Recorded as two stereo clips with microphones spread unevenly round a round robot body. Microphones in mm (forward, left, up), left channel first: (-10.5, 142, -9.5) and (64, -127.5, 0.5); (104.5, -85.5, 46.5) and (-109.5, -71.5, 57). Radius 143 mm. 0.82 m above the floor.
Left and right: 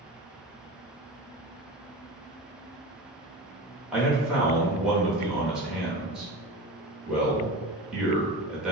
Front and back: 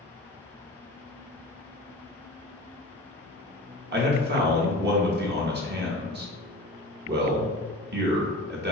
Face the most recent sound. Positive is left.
turn(degrees=-165)